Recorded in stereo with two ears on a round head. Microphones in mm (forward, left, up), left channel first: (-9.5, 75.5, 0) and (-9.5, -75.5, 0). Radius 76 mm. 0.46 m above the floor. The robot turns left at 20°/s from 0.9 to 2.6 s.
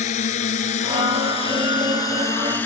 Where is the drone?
40° left (ahead or behind); by 2.7 s 10° left (ahead or behind).